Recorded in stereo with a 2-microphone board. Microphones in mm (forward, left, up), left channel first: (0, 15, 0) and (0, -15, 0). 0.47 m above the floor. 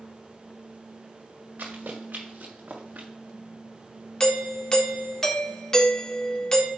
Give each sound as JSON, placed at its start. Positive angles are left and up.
{"t": 1.6, "sound": "running footsteps", "side_deg": -70, "distance_m": 4.0}
{"t": 4.2, "sound": "a doorbell", "side_deg": 20, "distance_m": 1.4}